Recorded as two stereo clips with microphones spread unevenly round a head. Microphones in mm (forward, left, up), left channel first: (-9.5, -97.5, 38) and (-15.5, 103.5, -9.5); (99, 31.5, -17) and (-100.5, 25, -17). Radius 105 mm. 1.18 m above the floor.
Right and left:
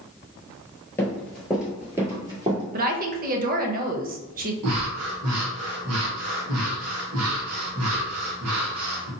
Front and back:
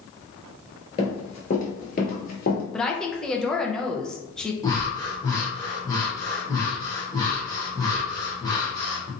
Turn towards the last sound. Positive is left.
turn(degrees=75)